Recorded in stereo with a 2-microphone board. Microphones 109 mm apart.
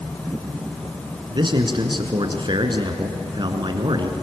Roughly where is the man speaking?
Right.